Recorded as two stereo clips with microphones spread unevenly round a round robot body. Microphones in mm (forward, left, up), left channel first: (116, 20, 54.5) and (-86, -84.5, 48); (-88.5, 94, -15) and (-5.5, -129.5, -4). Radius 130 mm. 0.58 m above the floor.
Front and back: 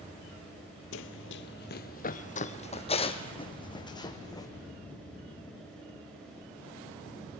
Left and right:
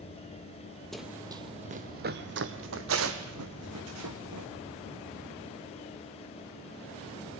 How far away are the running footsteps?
About 0.8 m.